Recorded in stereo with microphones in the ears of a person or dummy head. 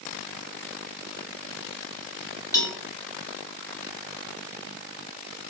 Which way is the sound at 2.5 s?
20° left (ahead or behind).